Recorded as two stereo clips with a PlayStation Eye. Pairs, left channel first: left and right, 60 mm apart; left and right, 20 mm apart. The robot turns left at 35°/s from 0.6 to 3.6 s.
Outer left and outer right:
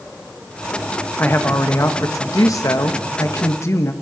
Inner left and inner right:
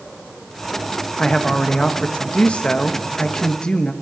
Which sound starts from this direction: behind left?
A woman speaking, at 1.2 s.